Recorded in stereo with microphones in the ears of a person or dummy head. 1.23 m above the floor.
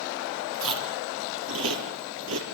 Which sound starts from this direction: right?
Chewing, at 0.5 s.